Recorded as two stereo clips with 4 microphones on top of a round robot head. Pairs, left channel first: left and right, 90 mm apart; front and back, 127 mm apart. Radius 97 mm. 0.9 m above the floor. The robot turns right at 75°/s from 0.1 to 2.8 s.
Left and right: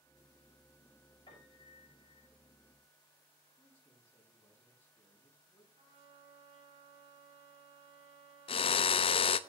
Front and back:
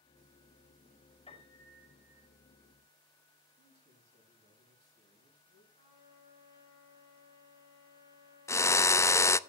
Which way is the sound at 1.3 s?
40° left.